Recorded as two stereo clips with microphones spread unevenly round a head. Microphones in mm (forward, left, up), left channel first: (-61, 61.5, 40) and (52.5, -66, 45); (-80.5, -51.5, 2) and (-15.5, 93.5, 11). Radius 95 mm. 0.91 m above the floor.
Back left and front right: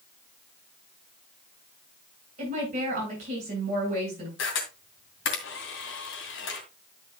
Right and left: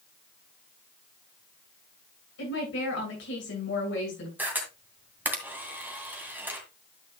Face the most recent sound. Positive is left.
turn(degrees=145)